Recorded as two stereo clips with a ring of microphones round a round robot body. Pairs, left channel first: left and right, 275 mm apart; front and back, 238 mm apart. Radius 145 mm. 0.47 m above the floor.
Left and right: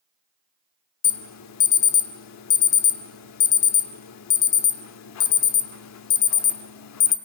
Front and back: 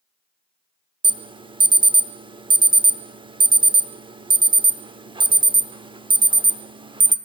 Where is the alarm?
110° left, 0.7 m.